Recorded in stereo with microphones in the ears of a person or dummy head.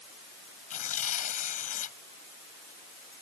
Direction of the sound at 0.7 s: 45° left (ahead or behind).